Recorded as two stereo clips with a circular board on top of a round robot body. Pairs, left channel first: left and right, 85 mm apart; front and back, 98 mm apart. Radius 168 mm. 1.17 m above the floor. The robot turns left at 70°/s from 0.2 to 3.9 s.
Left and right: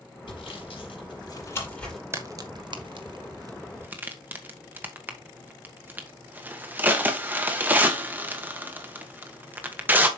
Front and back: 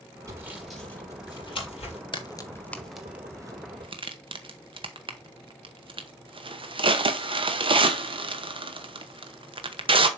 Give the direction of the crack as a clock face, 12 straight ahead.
1 o'clock.